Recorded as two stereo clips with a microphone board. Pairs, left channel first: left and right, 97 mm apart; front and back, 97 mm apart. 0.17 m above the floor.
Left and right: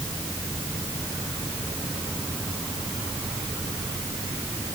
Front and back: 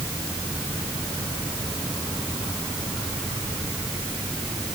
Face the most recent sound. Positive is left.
No sound to turn to.